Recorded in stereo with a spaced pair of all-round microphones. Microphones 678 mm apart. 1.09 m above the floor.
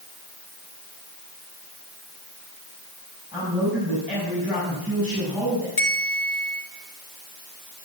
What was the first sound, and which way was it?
A man speaking, 5° right (ahead or behind).